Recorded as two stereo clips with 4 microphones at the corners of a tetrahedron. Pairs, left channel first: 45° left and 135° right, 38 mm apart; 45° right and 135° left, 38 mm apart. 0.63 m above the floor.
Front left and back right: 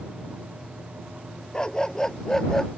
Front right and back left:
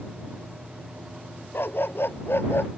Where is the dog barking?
25° right; by 2.7 s 35° right.